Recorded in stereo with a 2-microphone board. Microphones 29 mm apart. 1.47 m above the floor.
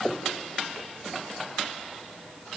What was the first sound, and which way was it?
Only background noise.